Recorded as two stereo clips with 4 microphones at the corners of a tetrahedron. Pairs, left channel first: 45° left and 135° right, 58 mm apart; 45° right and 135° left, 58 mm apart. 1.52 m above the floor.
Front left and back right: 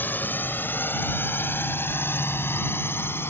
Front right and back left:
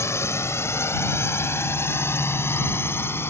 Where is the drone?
10° right; by 3.3 s straight ahead.